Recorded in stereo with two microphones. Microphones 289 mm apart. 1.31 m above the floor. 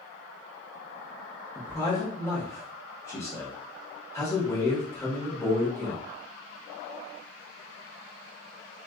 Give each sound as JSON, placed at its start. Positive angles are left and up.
{"t": 1.6, "sound": "a man speaking", "side_deg": 10, "distance_m": 1.2}